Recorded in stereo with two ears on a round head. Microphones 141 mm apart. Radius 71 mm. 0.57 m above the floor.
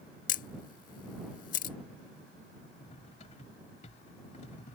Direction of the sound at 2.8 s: 45° left (ahead or behind).